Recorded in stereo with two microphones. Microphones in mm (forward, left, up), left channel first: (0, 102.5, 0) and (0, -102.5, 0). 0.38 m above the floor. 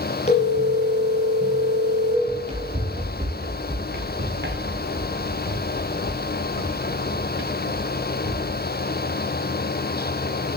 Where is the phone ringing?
35° left (ahead or behind), 5 m.